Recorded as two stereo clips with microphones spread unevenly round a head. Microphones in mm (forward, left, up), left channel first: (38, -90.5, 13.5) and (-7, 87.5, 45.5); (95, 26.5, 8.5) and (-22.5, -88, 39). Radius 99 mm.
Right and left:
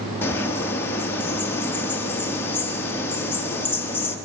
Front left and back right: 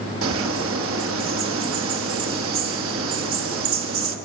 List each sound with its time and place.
0.2 s a bird: 155° right, 1.3 m